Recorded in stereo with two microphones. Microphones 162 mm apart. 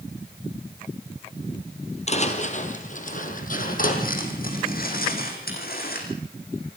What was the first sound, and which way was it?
Footsteps, 45° left (ahead or behind).